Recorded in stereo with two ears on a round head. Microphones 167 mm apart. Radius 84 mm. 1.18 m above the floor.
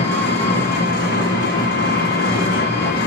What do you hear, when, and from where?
0.0 s an engine running: 55° left (ahead or behind), 0.9 m